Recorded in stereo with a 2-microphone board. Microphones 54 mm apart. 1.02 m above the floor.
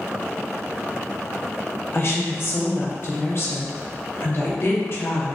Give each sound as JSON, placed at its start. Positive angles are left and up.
{"t": 1.9, "sound": "a woman speaking", "side_deg": 50, "distance_m": 0.7}